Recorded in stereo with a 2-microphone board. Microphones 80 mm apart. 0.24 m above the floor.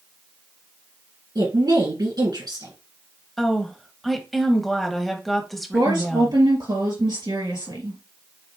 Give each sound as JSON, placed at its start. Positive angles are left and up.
{"t": 1.4, "sound": "a woman speaking", "side_deg": -60, "distance_m": 2.5}
{"t": 3.4, "sound": "a woman speaking", "side_deg": 0, "distance_m": 1.0}
{"t": 5.7, "sound": "a woman speaking", "side_deg": -70, "distance_m": 3.0}